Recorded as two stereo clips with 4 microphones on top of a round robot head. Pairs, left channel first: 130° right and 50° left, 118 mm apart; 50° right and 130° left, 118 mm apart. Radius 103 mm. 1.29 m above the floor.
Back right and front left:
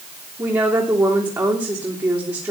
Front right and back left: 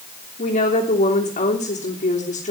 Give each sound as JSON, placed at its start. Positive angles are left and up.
{"t": 0.4, "sound": "a woman speaking", "azimuth_deg": -20, "distance_m": 3.0}